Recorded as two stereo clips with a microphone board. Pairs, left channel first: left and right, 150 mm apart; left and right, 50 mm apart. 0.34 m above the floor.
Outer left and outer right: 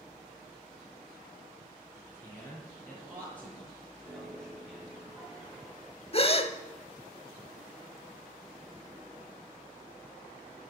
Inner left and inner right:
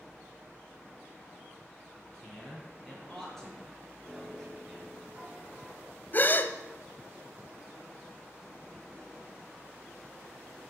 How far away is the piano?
About 5.5 m.